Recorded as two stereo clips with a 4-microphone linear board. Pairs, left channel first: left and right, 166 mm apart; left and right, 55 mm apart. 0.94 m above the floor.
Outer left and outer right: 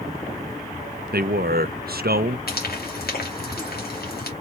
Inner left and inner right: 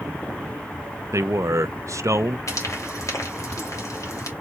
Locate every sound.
1.1 s a man speaking: 70° right (ahead or behind), 0.6 m
2.5 s frying: 70° left (ahead or behind), 2 m